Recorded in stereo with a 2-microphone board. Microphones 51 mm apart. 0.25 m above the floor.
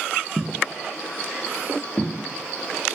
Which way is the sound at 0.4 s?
25° right (ahead or behind).